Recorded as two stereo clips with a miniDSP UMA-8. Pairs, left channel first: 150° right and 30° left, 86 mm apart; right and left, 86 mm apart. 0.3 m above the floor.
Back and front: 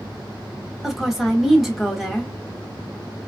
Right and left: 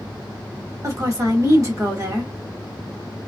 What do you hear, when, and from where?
0.8 s a woman speaking: 120° left, 1.3 m